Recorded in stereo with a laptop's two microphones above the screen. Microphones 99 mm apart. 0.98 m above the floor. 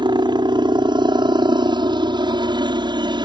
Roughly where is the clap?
I don't hear a clap.